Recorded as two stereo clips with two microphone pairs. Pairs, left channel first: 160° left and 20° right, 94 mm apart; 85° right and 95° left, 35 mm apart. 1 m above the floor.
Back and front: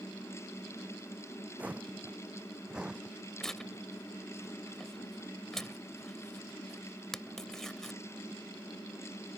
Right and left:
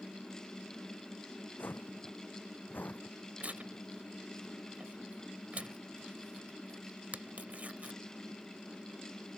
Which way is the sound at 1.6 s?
95° right.